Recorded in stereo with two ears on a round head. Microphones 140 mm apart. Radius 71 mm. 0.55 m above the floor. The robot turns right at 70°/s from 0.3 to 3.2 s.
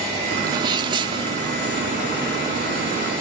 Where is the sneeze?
120° right, 1.4 m; by 1.5 s 50° right, 1.4 m.